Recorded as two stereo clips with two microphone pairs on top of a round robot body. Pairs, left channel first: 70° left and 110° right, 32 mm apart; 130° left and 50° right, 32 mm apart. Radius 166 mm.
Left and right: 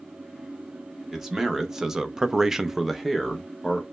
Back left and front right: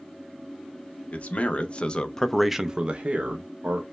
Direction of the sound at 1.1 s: 170° left.